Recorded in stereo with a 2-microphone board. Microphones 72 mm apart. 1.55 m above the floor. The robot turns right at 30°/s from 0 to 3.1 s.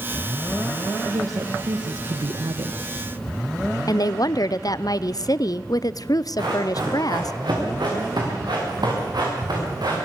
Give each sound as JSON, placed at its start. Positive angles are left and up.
{"t": 1.1, "sound": "a woman speaking", "azimuth_deg": -135, "distance_m": 1.4}
{"t": 3.9, "sound": "a woman speaking", "side_deg": 60, "distance_m": 0.6}
{"t": 6.4, "sound": "running footsteps", "side_deg": -80, "distance_m": 8.0}